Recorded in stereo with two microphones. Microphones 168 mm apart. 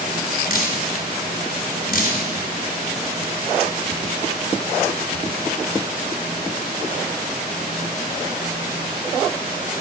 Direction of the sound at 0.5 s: 60° left (ahead or behind).